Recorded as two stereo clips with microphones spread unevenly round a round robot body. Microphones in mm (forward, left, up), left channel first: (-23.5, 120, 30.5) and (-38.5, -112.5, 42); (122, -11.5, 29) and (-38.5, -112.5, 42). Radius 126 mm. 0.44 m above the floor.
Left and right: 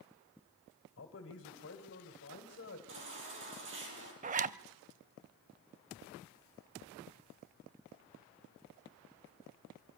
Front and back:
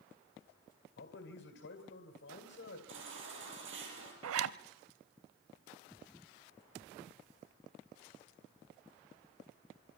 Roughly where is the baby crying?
Behind right.